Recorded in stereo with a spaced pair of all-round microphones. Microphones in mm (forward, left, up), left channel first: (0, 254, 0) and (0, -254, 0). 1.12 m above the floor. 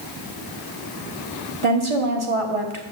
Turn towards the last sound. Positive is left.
turn(degrees=-70)  # may be behind; listen again after turning